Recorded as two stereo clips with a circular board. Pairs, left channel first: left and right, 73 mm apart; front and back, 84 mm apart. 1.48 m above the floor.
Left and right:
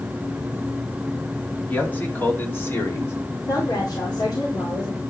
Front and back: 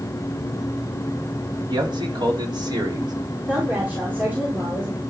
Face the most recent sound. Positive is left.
turn(degrees=110)